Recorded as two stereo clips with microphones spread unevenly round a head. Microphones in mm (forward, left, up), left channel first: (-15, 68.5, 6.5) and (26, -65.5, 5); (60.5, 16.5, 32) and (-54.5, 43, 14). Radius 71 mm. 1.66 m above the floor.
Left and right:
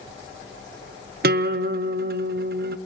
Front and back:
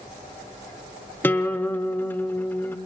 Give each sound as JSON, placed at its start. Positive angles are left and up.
{"t": 1.2, "sound": "a guitar", "azimuth_deg": -85, "distance_m": 0.7}